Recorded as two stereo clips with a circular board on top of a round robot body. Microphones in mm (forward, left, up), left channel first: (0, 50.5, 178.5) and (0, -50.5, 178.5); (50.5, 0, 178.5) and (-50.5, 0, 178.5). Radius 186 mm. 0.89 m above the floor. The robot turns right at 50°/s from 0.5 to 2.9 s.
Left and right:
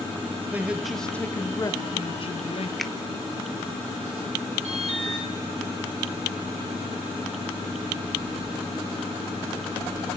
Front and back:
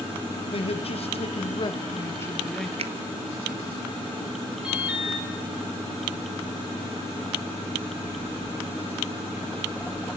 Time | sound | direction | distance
0.5 | a man speaking | 20° right | 1.6 m
2.8 | a finger snap | 175° left | 1.4 m
4.6 | an alarm | 95° right | 4.5 m